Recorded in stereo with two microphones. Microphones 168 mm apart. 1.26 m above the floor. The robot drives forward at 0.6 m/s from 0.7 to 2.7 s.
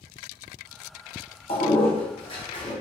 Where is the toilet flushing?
35° left (ahead or behind), 0.9 m; by 2.7 s 30° left (ahead or behind), 1.0 m.